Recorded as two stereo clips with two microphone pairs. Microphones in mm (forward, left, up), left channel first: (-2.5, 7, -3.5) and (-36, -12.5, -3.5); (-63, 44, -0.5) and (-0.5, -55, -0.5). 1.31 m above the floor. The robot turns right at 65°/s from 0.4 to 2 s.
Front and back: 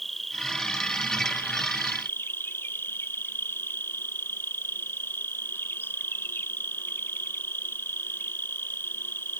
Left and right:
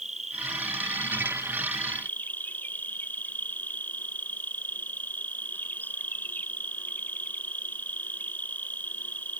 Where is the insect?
55° right; by 9.4 s 45° left.